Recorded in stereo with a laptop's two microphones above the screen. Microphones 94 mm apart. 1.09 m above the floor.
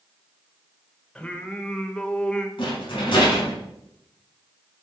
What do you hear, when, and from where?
1.1 s singing: 10° left (ahead or behind), 1.3 m
2.6 s a rattle: 60° left (ahead or behind), 5 m